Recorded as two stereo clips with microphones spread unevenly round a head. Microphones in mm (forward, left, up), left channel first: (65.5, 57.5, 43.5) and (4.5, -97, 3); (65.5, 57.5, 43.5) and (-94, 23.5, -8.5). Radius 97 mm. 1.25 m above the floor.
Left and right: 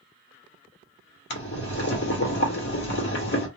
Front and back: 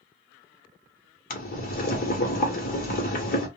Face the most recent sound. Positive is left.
turn(degrees=50)